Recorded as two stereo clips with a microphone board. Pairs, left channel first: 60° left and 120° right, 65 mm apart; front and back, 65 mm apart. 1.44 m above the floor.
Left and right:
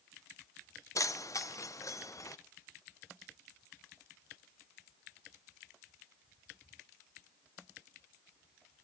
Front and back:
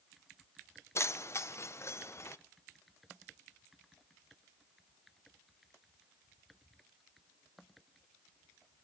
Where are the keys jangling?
40° left, 0.6 m.